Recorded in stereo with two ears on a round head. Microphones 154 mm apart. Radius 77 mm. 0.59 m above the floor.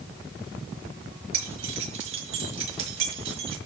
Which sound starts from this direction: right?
Keys jangling, at 1.3 s.